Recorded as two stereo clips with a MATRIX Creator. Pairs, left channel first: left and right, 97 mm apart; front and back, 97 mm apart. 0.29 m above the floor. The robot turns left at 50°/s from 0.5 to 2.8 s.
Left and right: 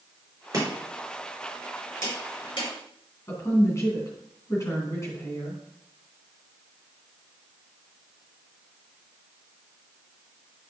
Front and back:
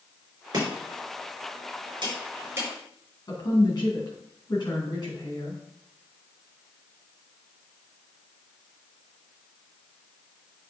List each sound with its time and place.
0.5 s chopping: 140° right, 4.5 m; by 2.7 s 110° left, 4.5 m
3.3 s a woman speaking: 35° left, 2.5 m